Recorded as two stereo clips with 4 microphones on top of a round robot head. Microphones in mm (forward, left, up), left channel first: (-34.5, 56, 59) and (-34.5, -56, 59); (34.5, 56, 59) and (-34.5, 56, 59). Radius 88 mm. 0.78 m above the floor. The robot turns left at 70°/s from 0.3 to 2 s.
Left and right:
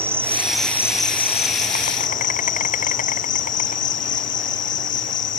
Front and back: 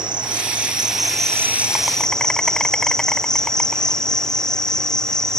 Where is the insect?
160° right; by 5.4 s 80° left.